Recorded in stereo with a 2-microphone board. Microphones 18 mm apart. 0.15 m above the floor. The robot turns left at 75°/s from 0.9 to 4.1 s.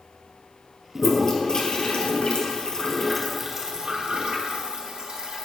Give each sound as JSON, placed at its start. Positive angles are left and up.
{"t": 0.9, "sound": "a toilet flushing", "side_deg": 5, "distance_m": 2.0}